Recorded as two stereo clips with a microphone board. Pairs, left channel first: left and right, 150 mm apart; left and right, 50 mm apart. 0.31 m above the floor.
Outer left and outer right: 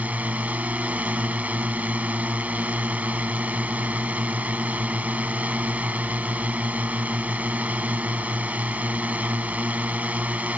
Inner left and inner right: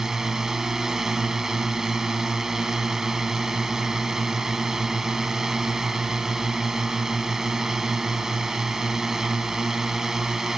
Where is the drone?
10° right (ahead or behind).